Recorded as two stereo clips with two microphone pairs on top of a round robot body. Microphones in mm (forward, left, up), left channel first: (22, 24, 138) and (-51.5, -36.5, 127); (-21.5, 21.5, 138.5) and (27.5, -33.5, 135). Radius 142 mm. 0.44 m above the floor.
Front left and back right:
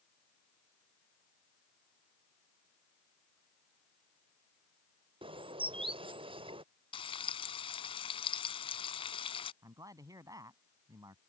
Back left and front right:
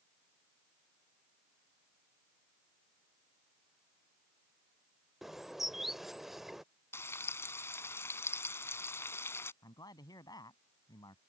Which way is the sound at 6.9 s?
75° left.